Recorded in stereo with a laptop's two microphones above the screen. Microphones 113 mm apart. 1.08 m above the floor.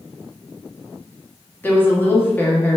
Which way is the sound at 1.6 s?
20° left (ahead or behind).